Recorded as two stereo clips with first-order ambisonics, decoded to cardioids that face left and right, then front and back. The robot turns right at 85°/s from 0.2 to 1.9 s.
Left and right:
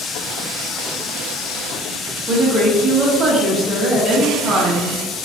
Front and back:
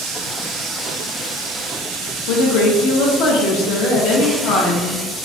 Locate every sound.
2.3 s a woman speaking: 30° right, 0.7 m